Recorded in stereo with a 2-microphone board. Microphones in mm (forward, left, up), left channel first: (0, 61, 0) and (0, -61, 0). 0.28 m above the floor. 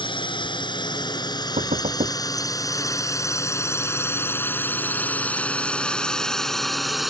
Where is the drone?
40° left (ahead or behind); by 7.1 s centre (ahead or behind).